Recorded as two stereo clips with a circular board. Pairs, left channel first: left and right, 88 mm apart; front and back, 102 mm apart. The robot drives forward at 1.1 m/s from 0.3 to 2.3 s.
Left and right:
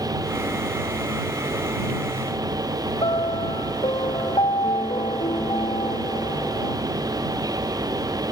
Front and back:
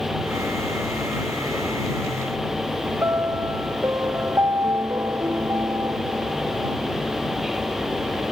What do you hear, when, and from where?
3.0 s a piano: 115° left